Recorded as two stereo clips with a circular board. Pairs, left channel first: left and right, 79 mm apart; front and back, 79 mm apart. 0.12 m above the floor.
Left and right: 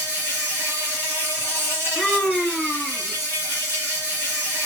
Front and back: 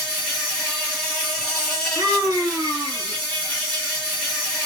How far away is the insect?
About 2 m.